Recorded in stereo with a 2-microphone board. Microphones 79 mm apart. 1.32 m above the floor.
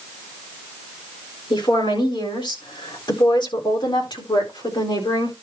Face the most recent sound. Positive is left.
turn(degrees=60)  # may be behind; listen again after turning